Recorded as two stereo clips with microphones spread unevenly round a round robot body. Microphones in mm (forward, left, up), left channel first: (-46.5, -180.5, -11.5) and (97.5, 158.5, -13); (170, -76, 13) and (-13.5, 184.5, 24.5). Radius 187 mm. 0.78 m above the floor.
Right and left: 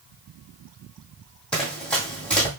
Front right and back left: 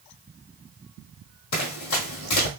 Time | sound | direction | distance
1.5 | running footsteps | 25° right | 2.0 m